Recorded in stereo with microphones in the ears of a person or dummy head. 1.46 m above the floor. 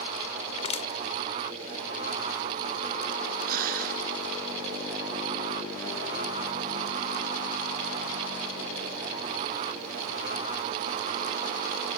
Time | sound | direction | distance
0.6 | crushing | 35° left (ahead or behind) | ?
3.5 | breathing | 55° right (ahead or behind) | ?